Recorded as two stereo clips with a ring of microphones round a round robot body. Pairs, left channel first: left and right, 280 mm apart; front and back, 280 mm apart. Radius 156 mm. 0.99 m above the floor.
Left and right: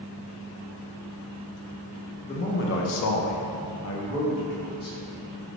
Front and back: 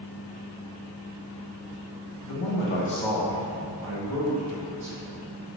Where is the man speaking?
25° left, 0.7 m; by 5.2 s 150° left, 1.7 m.